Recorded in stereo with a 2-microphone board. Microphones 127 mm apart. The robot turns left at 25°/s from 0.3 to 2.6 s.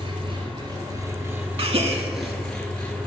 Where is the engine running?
130° right, 1.2 m; by 3.1 s 170° left, 1.2 m.